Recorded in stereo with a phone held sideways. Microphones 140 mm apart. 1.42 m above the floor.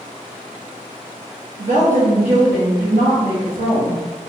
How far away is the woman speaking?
About 1.5 m.